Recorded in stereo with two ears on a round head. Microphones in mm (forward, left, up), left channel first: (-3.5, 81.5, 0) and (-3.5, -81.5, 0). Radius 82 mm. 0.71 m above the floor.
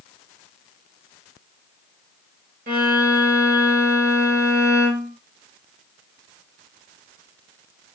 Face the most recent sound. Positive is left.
turn(degrees=-50)  # may be behind; listen again after turning